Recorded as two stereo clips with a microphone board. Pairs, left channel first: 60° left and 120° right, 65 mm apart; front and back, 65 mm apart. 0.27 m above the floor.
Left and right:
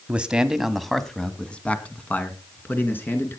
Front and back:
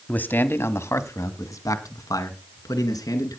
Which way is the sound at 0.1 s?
55° right.